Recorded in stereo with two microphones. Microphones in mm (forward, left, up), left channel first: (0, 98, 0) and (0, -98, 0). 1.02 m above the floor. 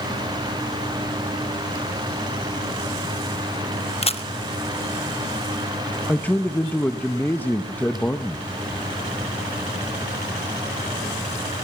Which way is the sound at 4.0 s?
30° left (ahead or behind).